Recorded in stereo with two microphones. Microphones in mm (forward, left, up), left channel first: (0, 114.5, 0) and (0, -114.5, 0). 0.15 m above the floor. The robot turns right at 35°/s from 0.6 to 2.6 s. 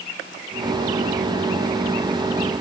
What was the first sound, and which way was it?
Only background noise.